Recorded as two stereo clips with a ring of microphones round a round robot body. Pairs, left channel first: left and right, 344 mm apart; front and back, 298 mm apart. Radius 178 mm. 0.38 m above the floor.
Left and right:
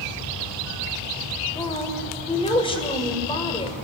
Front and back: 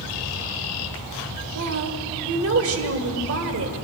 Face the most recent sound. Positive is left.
turn(degrees=160)